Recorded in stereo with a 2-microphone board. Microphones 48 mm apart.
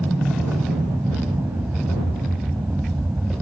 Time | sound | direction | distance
0.0 | an aircraft | 45° right (ahead or behind) | ?